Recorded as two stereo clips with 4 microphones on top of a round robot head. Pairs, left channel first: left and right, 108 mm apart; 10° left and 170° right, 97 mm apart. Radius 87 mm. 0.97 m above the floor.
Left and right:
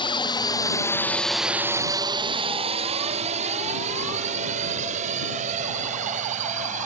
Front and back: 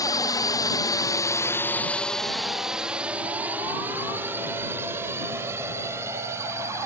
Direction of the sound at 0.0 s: 55° left.